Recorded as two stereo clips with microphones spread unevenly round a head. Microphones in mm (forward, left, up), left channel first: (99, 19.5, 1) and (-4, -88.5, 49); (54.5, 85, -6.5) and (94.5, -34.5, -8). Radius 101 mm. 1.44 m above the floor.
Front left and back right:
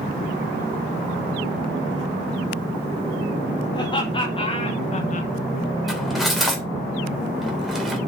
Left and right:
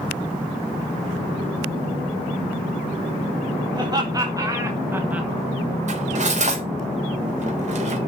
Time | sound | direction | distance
3.7 | laughter | 15° right | 2.5 m
5.9 | cutlery clinking | 50° right | 4 m